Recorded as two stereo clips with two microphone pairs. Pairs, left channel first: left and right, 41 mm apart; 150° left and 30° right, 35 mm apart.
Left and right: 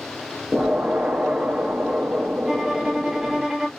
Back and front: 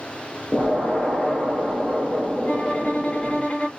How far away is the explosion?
About 0.9 m.